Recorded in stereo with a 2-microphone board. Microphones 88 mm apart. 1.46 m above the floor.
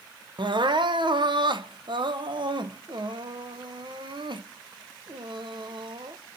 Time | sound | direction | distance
0.4 | crying | 65° right (ahead or behind) | 0.9 m